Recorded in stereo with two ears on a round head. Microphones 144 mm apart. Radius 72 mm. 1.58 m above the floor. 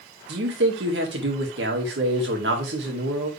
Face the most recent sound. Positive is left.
turn(degrees=-75)  # may be behind; listen again after turning